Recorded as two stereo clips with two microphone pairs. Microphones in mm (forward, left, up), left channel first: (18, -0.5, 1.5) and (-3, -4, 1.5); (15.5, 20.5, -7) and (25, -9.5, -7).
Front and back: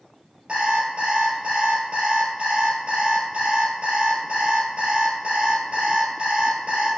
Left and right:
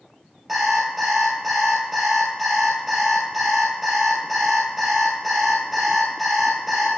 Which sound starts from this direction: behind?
An alarm clock, at 0.5 s.